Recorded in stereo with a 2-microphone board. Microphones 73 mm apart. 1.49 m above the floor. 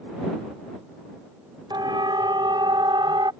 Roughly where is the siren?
Right.